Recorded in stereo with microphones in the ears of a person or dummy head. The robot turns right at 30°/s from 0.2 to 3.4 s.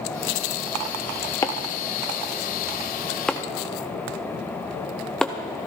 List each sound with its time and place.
1.4 s chopping: 20° left (ahead or behind), 0.6 m; by 5.3 s 5° left (ahead or behind), 0.6 m